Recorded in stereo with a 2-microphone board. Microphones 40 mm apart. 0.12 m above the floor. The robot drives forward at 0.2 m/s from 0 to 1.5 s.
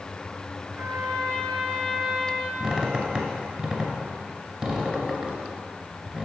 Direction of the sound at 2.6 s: 25° right (ahead or behind).